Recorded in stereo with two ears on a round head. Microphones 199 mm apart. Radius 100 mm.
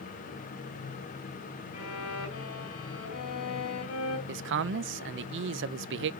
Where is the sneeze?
I don't hear a sneeze.